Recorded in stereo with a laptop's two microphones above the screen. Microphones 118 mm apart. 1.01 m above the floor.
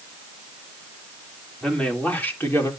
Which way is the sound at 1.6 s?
5° left (ahead or behind).